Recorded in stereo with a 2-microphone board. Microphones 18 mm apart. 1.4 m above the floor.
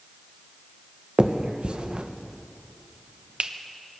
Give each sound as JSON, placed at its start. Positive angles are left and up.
{"t": 1.2, "sound": "a finger snap", "side_deg": -60, "distance_m": 0.8}